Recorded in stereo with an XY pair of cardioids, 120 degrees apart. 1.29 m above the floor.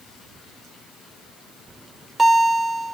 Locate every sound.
1.7 s a bell: 20° right, 2.0 m